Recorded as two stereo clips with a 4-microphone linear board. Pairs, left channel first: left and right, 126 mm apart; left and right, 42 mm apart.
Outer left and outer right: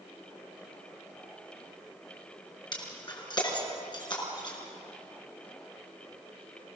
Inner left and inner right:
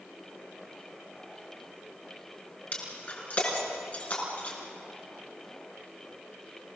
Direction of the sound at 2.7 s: 35° left (ahead or behind).